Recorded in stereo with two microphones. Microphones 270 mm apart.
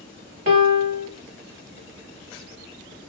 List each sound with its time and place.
0.5 s a piano: 35° right (ahead or behind), 1.0 m